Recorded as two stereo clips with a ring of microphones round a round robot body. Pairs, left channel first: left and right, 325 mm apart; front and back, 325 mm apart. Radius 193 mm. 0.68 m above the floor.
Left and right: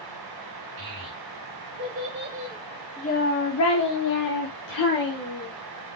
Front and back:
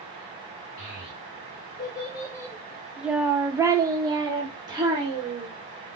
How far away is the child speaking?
About 1.5 m.